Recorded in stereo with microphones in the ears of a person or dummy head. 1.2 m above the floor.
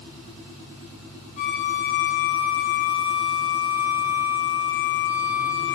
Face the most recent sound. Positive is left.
turn(degrees=45)  # may be behind; listen again after turning